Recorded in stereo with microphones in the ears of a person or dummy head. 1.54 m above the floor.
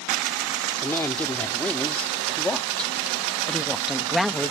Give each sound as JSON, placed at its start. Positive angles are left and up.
{"t": 0.8, "sound": "a woman speaking", "side_deg": 10}